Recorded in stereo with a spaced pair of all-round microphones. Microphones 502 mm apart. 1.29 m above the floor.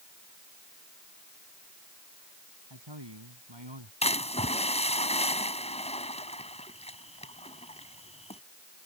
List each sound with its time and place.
2.7 s a man speaking: 60° right (ahead or behind); by 3.9 s 65° right (ahead or behind)
4.0 s a splash: 15° left (ahead or behind)